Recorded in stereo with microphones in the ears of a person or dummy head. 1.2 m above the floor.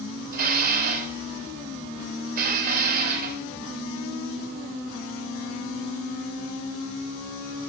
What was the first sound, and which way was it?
Dishes clattering, 50° right (ahead or behind).